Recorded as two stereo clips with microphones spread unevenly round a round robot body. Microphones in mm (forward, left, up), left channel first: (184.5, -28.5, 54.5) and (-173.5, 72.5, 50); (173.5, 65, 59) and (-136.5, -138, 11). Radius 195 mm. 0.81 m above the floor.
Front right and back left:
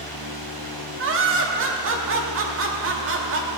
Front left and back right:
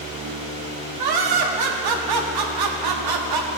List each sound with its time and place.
1.0 s laughter: 140° right, 1.6 m